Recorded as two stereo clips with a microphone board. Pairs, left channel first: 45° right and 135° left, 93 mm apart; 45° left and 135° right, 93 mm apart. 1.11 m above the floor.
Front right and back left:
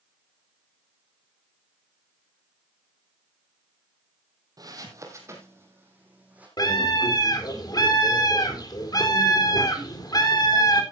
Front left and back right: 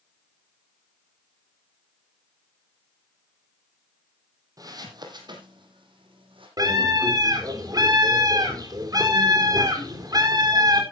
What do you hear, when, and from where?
4.6 s footsteps: straight behind, 2.5 m; by 6.5 s 150° right, 3.5 m
6.6 s a scream: 90° right, 4 m